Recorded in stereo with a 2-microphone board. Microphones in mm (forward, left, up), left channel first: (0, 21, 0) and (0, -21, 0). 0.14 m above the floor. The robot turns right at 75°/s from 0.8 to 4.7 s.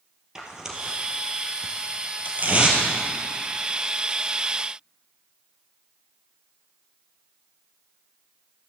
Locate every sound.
0.3 s tearing paper: 10° right (ahead or behind), 2.0 m; by 2.8 s 15° right (ahead or behind), 2.0 m